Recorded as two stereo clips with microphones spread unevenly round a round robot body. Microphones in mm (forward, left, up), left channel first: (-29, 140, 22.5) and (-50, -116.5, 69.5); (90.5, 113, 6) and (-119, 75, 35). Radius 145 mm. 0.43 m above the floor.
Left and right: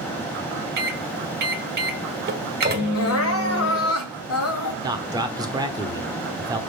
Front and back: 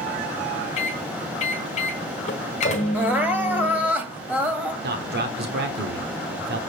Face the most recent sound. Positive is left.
turn(degrees=-175)